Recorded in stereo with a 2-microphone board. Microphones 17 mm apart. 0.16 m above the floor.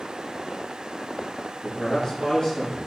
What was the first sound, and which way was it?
A man speaking, 40° left (ahead or behind).